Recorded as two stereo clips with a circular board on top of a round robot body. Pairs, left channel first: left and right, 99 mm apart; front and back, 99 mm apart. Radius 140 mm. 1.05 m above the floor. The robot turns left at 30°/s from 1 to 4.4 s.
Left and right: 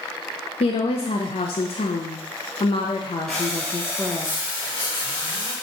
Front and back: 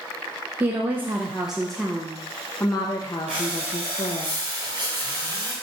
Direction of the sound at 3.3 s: 175° left.